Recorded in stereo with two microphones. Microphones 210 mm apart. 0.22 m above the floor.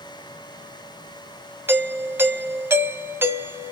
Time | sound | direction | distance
1.7 | a doorbell | 10° right (ahead or behind) | 1.4 m